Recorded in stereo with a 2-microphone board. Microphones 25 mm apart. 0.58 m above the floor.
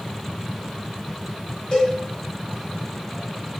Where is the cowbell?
40° left (ahead or behind), 1.6 m.